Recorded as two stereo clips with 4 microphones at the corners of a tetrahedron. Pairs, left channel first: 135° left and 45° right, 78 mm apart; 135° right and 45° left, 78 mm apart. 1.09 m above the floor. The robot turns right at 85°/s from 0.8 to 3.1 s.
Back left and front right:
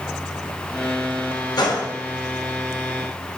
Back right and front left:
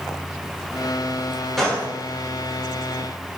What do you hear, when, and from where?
1.6 s a gunshot: 140° left, 0.7 m; by 1.9 s 165° left, 0.7 m